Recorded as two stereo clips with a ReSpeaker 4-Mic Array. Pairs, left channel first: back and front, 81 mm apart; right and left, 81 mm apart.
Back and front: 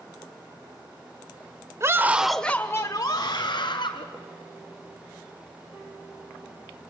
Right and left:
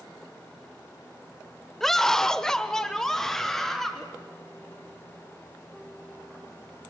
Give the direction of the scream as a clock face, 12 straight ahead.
12 o'clock.